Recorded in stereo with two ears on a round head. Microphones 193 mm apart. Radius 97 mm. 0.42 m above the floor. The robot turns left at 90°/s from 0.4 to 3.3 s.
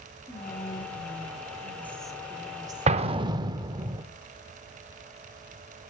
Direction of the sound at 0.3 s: 10° left (ahead or behind).